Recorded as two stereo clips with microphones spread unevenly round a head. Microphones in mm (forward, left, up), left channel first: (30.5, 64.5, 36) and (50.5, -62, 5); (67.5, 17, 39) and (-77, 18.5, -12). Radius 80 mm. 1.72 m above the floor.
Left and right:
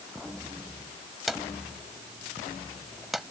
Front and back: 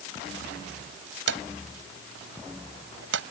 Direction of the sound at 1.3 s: 175° right.